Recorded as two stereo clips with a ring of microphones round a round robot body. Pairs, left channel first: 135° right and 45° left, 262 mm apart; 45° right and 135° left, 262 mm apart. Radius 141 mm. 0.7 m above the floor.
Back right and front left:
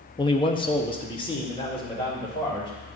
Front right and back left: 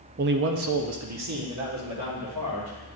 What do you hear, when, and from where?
0.2 s a man speaking: 165° left, 0.5 m; by 3.0 s 150° left, 3 m